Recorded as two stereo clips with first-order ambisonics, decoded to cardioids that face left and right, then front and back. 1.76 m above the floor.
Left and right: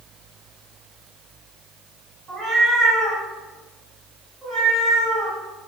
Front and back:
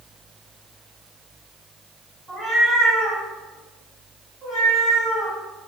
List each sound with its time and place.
2.3 s a cat meowing: 90° right, 1.6 m; by 5.4 s 170° left, 1.8 m